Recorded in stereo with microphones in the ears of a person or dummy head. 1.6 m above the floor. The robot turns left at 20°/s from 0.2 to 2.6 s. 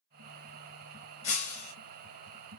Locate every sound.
1.2 s breaking glass: 30° left (ahead or behind), 1.6 m; by 1.7 s 40° left (ahead or behind), 1.6 m